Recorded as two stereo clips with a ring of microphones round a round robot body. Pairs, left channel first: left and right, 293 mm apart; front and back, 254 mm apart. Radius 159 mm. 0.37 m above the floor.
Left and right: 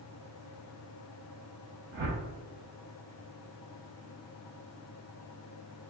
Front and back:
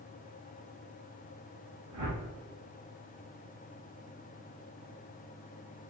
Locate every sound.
1.9 s a whoosh: 140° right, 0.7 m